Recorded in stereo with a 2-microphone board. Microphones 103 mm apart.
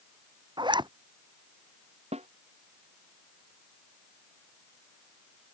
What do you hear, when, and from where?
0.6 s a zipper: 45° right (ahead or behind)
2.1 s a snare drum: 85° right